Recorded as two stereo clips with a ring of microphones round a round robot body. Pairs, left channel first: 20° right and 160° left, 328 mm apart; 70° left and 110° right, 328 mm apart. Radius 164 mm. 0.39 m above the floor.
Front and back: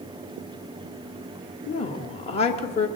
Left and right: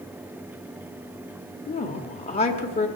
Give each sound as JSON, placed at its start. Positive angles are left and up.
{"t": 1.7, "sound": "a woman speaking", "azimuth_deg": 20, "distance_m": 1.1}